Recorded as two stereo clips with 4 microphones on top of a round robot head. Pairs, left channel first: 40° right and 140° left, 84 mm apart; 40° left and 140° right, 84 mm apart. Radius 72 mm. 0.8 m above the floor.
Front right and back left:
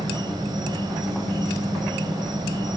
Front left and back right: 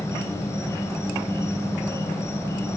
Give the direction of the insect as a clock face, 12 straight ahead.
9 o'clock.